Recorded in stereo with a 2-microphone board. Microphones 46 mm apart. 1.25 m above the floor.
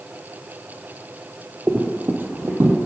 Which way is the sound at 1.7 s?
40° right (ahead or behind).